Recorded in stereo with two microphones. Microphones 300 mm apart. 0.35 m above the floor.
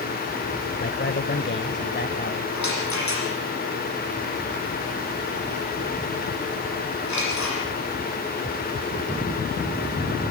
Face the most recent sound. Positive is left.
turn(degrees=60)  # may be behind; listen again after turning